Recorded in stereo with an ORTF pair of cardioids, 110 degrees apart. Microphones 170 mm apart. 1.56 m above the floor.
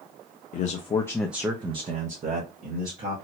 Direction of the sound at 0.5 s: 50° left.